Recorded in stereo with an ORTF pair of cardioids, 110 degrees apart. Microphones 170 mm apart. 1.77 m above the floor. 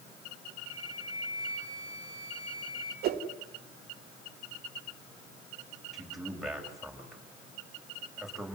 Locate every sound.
0.7 s a flute: 45° left, 9.5 m
3.0 s a whoosh: 70° right, 2.5 m
5.9 s a man speaking: straight ahead, 8 m